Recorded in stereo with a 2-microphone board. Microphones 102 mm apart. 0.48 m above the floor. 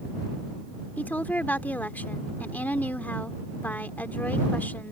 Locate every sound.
1.0 s a woman speaking: 15° left (ahead or behind)